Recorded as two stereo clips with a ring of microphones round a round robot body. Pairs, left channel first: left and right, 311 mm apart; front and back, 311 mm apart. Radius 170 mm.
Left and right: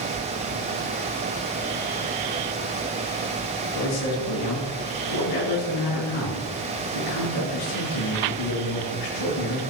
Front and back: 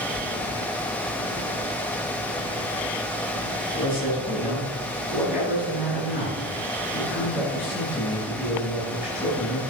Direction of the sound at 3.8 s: 65° left.